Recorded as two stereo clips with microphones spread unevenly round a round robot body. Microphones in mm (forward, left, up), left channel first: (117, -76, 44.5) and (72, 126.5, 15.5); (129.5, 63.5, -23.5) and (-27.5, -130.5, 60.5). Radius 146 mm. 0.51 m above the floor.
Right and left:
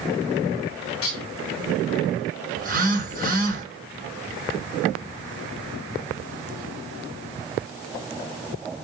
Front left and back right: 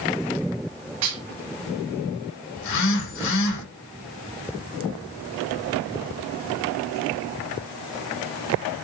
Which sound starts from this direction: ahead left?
A phone buzzing, at 2.6 s.